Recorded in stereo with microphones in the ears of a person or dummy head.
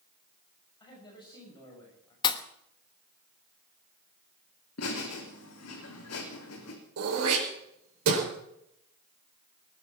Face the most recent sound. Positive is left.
turn(degrees=-75)  # may be behind; listen again after turning